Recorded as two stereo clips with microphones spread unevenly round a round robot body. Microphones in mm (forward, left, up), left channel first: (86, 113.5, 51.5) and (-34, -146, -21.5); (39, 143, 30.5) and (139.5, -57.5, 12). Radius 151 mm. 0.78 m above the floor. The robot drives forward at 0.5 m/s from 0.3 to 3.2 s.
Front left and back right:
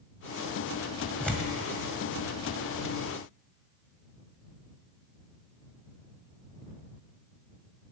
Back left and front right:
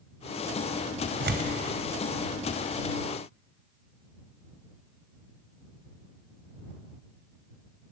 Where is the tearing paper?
20° right, 1.9 m.